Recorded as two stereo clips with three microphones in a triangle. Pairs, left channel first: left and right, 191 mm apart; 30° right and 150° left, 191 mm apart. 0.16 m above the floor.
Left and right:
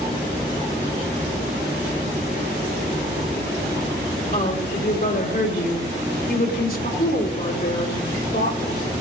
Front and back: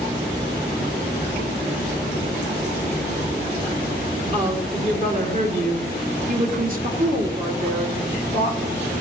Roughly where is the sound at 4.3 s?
Behind left.